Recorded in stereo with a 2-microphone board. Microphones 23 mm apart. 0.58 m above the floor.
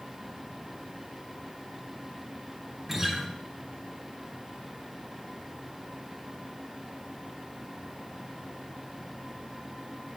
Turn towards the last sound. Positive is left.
turn(degrees=-20)  # may be behind; listen again after turning